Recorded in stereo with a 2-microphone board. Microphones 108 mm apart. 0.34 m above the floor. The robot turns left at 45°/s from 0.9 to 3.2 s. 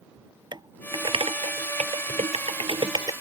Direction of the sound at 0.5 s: 40° right (ahead or behind).